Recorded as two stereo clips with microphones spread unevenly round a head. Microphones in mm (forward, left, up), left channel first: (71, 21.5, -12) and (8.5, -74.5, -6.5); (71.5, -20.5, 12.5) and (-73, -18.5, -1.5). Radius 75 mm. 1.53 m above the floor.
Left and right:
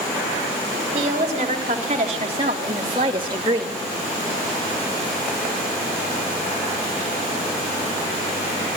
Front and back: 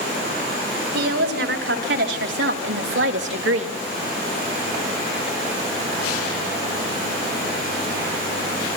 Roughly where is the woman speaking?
Behind.